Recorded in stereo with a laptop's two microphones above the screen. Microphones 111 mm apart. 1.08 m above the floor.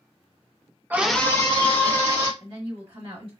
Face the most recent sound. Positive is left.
turn(degrees=-50)  # may be behind; listen again after turning